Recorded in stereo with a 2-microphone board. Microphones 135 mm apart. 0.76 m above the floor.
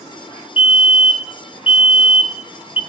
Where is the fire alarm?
45° left (ahead or behind), 2.5 m.